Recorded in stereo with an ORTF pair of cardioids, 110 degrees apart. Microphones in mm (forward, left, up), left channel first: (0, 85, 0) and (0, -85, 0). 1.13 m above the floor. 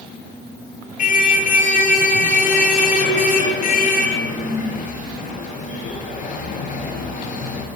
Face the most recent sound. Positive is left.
turn(degrees=55)